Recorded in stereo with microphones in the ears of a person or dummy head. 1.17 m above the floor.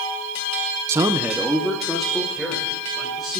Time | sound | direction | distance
0.9 | a man speaking | 15° right (ahead or behind) | 0.5 m